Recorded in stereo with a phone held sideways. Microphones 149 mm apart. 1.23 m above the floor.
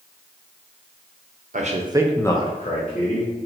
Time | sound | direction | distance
1.5 | a man speaking | 55° right (ahead or behind) | 0.8 m